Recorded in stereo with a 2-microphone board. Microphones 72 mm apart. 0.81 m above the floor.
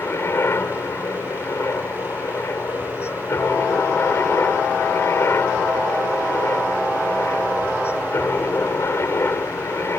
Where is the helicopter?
35° left (ahead or behind).